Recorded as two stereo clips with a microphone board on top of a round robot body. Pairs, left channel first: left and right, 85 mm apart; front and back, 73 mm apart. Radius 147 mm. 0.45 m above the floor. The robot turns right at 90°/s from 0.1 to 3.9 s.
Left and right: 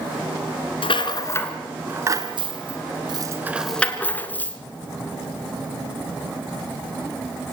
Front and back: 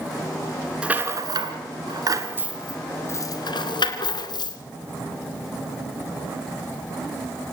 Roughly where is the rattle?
Left.